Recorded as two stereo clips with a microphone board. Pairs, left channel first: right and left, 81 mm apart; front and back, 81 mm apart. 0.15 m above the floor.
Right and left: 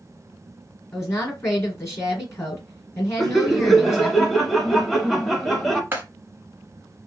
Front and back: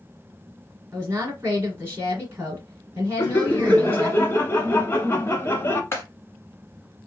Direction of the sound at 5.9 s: 40° left.